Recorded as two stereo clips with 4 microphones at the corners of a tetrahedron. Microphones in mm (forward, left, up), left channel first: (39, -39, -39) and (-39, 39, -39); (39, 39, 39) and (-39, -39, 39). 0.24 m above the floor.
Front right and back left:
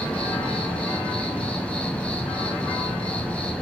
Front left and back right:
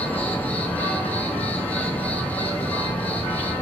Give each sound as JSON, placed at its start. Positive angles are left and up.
{"t": 0.0, "sound": "an insect", "azimuth_deg": 5, "distance_m": 1.2}